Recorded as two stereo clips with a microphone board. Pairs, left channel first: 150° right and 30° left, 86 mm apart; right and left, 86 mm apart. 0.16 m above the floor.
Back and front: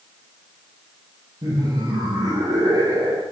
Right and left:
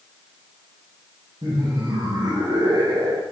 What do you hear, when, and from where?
1.4 s laughter: 65° left, 2.5 m